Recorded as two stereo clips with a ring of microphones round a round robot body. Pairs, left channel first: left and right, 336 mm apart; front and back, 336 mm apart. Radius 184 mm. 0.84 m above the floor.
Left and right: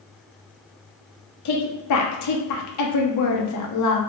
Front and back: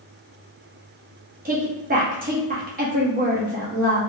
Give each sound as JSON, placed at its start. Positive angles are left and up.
{"t": 1.4, "sound": "a woman speaking", "azimuth_deg": 120, "distance_m": 1.0}